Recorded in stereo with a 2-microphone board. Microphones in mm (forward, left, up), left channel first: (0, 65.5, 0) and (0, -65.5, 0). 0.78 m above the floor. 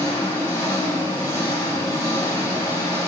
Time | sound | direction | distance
0.0 | an engine running | 20° left (ahead or behind) | 5.5 m